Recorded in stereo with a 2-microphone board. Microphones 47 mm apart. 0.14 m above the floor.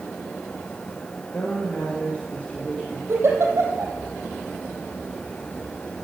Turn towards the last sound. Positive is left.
turn(degrees=-55)  # may be behind; listen again after turning